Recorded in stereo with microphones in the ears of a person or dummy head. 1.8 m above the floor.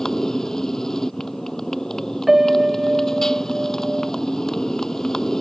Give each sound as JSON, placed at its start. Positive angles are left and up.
{"t": 0.0, "sound": "a motorcycle", "side_deg": 5}
{"t": 2.3, "sound": "a piano", "side_deg": 0}